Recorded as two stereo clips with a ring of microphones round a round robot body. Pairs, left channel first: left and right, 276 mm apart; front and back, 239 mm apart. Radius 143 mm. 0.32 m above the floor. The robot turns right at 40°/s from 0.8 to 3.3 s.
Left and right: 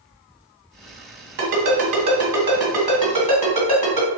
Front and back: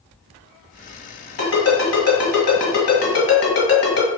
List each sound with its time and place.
1.4 s a ringtone: 50° right, 1.8 m; by 4.1 s 25° left, 1.8 m